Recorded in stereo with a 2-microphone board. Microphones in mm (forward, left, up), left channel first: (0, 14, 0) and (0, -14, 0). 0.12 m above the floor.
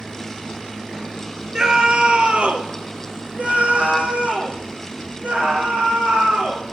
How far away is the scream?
About 1.5 m.